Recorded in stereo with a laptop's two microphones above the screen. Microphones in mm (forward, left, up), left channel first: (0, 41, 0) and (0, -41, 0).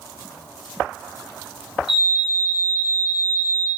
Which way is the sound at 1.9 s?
5° right (ahead or behind).